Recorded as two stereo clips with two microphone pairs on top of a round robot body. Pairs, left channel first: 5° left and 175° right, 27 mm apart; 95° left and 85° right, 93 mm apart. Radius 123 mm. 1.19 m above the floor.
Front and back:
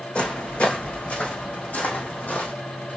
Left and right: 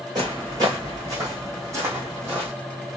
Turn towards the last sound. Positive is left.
turn(degrees=-15)